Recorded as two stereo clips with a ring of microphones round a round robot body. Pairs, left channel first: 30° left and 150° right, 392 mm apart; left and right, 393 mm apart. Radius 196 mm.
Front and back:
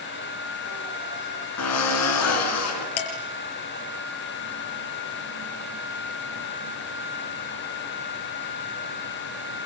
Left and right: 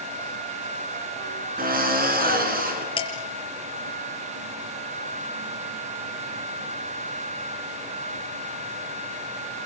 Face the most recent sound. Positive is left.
turn(degrees=10)